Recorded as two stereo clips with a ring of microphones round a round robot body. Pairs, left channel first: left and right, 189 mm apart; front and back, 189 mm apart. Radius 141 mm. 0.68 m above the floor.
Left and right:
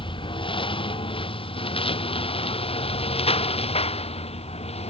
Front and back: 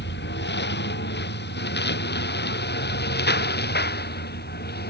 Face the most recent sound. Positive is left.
turn(degrees=35)